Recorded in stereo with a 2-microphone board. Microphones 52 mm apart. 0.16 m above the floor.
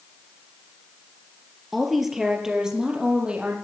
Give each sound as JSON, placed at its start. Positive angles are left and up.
{"t": 1.7, "sound": "a woman speaking", "side_deg": 0, "distance_m": 3.5}